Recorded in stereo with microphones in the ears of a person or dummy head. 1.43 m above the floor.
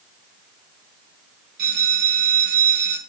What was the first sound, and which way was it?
A bell, 50° right (ahead or behind).